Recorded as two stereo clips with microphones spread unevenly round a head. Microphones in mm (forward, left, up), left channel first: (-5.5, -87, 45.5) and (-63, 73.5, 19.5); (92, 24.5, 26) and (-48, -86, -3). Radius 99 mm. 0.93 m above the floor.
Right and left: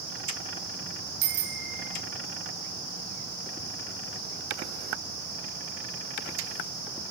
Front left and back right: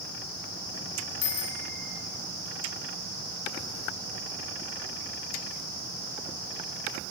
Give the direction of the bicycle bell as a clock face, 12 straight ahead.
9 o'clock.